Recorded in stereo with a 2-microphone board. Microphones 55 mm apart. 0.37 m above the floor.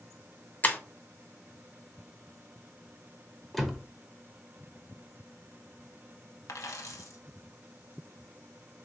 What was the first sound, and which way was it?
Breaking glass, 30° left (ahead or behind).